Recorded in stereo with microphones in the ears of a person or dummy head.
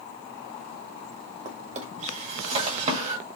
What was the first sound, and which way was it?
A drawer, 40° right (ahead or behind).